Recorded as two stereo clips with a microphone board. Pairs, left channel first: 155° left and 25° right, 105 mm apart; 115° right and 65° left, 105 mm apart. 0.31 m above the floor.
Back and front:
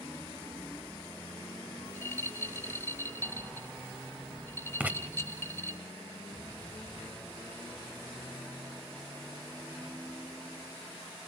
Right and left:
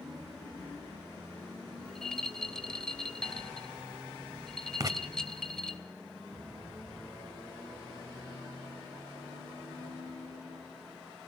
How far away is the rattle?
About 1.0 m.